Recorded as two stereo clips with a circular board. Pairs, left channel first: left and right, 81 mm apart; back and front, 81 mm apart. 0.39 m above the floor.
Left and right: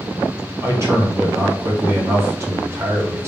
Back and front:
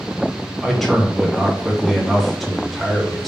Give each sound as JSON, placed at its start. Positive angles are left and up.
{"t": 0.6, "sound": "a man speaking", "azimuth_deg": -90, "distance_m": 0.9}